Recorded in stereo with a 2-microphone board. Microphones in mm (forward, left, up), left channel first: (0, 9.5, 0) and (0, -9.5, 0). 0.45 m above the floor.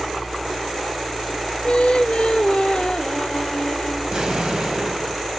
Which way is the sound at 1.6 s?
70° left (ahead or behind).